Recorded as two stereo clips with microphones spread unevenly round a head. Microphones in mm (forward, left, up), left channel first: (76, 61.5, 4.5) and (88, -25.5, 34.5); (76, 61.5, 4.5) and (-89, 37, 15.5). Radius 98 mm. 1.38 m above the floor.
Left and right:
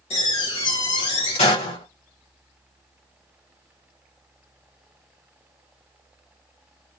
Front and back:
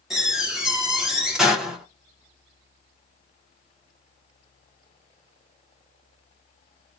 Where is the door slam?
100° left, 2 m.